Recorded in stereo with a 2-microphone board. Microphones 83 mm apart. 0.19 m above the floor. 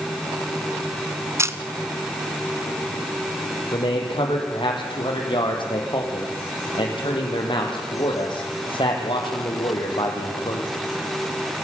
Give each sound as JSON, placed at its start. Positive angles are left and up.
{"t": 1.4, "sound": "a camera shutter", "side_deg": -35, "distance_m": 1.2}
{"t": 3.7, "sound": "a man speaking", "side_deg": 75, "distance_m": 7.0}